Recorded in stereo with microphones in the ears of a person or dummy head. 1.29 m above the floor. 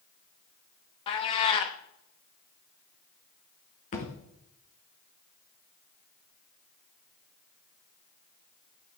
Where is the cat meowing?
30° left (ahead or behind), 0.8 m.